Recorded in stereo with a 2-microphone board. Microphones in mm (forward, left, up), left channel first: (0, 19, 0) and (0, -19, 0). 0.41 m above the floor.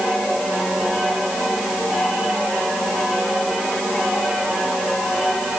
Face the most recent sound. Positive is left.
No sound to turn to.